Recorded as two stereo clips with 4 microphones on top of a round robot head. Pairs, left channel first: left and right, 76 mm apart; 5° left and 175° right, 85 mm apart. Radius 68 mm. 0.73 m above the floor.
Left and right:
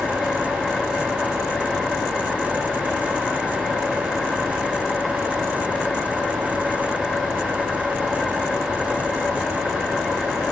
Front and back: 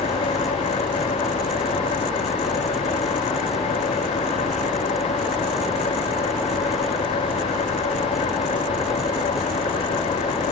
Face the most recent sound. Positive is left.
turn(degrees=5)